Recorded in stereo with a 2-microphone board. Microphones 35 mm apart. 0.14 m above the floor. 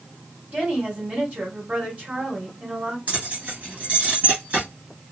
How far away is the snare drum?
No snare drum in this recording.